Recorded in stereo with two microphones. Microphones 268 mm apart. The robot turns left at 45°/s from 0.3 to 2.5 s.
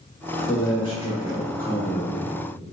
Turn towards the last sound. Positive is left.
turn(degrees=85)